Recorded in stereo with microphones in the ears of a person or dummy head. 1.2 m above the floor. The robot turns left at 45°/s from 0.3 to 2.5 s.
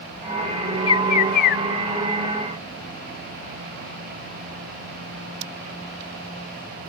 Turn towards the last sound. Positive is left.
turn(degrees=75)